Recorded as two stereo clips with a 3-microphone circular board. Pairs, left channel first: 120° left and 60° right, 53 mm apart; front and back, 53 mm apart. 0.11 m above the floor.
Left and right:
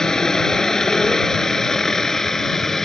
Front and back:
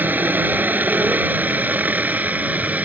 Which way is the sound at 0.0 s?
170° right.